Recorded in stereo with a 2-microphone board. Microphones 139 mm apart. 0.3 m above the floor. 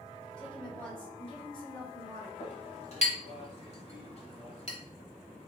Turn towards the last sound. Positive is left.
turn(degrees=50)  # may be behind; listen again after turning